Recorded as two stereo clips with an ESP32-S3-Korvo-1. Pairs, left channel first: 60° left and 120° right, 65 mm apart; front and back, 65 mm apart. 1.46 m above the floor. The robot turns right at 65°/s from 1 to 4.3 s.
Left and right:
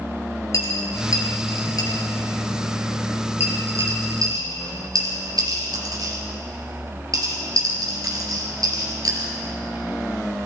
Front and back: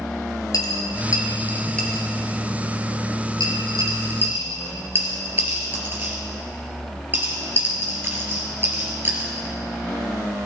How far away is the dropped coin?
About 3 m.